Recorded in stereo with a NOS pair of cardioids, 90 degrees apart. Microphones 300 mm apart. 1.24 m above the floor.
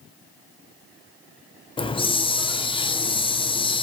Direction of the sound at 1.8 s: 20° left.